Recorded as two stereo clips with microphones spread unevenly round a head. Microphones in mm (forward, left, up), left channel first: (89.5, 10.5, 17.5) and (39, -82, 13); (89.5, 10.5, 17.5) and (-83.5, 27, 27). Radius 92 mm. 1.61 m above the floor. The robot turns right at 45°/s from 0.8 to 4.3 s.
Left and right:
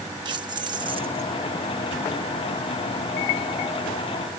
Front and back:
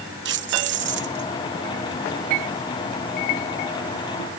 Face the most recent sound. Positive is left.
turn(degrees=-25)